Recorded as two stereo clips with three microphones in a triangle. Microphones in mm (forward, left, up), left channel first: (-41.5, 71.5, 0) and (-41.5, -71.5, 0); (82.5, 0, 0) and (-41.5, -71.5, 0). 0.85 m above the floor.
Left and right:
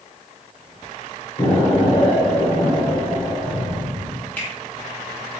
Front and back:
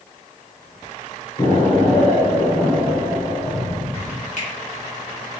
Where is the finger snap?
15° left, 1.1 m.